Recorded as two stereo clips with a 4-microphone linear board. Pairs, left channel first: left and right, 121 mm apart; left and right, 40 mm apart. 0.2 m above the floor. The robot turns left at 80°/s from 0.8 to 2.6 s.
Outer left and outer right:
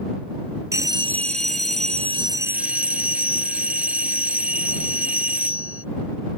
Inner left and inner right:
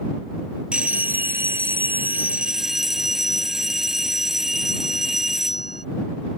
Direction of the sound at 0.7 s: 25° right.